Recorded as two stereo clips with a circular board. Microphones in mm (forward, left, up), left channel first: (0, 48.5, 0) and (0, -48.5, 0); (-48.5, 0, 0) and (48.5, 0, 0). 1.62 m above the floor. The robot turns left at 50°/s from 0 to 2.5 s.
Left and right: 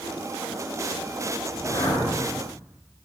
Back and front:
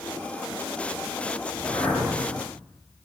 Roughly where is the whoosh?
Behind left.